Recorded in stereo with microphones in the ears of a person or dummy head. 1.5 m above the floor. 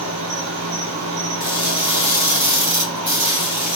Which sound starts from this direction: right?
An insect, at 0.0 s.